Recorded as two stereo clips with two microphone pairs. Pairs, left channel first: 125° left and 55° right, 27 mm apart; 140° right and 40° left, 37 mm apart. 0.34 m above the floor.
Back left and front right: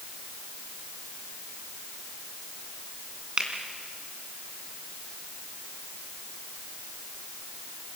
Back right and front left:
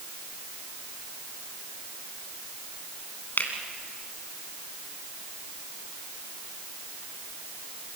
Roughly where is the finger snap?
Right.